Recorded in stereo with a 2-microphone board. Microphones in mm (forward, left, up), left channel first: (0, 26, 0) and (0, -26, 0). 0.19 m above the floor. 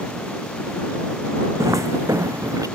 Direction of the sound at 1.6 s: 70° right (ahead or behind).